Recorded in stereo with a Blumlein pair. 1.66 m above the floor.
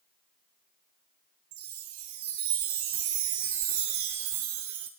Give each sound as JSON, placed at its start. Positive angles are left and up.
{"t": 1.5, "sound": "a chime", "azimuth_deg": -50, "distance_m": 1.0}